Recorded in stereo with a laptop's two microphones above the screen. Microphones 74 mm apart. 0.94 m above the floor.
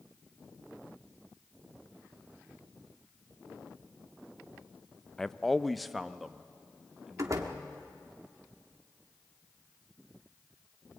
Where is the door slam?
50° right (ahead or behind), 1.3 m.